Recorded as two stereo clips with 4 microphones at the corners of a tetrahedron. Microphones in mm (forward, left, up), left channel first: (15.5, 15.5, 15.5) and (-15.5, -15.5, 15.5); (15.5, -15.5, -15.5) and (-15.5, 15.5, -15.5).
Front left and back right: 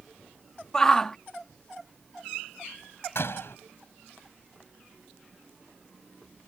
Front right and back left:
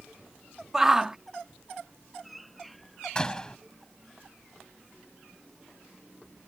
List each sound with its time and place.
0.7 s a shout: 90° left
3.1 s a door slam: 25° left